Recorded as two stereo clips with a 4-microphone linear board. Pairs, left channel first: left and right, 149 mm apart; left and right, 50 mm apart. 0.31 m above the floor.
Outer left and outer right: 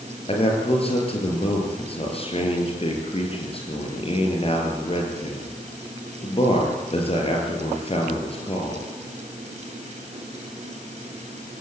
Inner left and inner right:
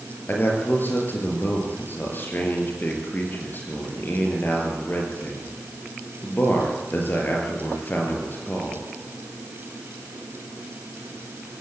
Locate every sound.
0.3 s a man speaking: 40° left (ahead or behind), 5.5 m